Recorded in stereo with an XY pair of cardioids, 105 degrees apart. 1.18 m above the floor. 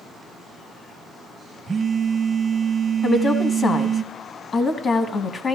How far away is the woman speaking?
About 0.9 m.